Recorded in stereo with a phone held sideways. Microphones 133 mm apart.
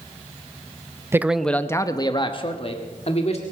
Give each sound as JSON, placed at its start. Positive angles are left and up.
{"t": 1.1, "sound": "a man speaking", "side_deg": -20, "distance_m": 0.6}